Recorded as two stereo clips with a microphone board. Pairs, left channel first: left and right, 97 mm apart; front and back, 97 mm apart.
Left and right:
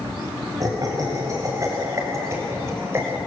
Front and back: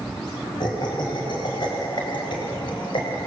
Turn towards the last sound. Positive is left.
turn(degrees=-25)